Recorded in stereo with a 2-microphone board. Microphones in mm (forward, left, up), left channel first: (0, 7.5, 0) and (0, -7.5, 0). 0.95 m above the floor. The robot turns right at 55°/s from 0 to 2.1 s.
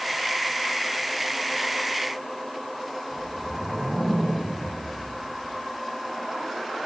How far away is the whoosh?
About 4 m.